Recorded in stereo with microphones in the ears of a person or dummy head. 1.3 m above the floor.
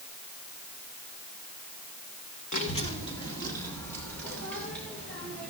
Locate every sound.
2.5 s a child speaking: 40° left (ahead or behind), 1.4 m; by 5.5 s centre (ahead or behind), 5 m